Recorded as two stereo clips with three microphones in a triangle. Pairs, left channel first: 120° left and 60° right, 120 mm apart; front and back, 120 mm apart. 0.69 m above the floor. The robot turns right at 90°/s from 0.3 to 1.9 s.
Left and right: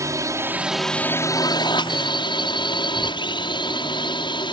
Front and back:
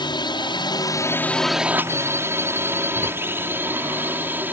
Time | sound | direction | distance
0.0 | a drone | 15° right | ?